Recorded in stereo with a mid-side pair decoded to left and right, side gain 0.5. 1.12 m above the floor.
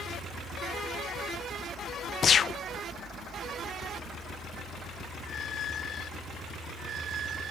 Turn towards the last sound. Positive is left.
turn(degrees=45)